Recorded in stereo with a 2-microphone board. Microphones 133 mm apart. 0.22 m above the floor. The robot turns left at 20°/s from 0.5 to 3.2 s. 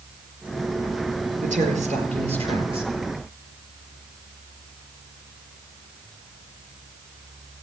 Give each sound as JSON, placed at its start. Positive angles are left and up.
{"t": 1.4, "sound": "a woman speaking", "azimuth_deg": -110, "distance_m": 5.0}